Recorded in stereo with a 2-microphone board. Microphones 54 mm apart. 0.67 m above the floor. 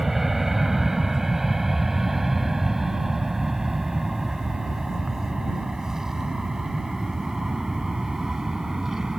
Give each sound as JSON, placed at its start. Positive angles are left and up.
{"t": 0.0, "sound": "an aircraft", "side_deg": -5}